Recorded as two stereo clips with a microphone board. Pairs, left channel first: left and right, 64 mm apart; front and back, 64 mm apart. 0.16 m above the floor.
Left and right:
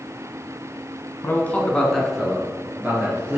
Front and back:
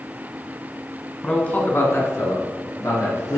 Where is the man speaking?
65° left, 1.3 m; by 3.4 s 20° right, 2.5 m.